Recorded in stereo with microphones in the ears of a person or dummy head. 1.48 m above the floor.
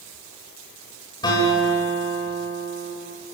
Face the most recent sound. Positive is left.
turn(degrees=25)  # may be behind; listen again after turning